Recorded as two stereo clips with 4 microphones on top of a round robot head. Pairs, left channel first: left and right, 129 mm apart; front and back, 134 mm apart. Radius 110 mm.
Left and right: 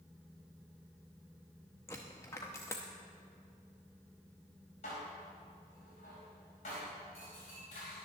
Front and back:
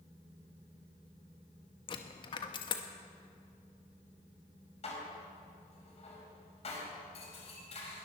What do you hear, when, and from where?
1.9 s a dropped coin: 25° left, 0.6 m
4.8 s dishes clattering: 40° left, 4.5 m